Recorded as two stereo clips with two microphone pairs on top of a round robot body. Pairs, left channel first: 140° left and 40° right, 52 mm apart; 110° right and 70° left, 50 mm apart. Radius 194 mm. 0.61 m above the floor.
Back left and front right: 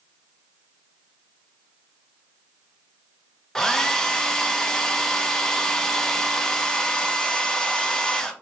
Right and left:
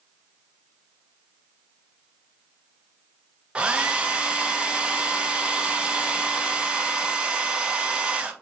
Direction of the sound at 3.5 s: 105° left.